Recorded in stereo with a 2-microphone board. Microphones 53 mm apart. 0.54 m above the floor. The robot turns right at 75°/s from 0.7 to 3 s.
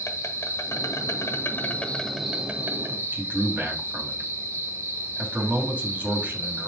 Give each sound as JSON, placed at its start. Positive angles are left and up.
{"t": 0.0, "sound": "an insect", "azimuth_deg": 70, "distance_m": 1.1}
{"t": 3.1, "sound": "a man speaking", "side_deg": -40, "distance_m": 2.5}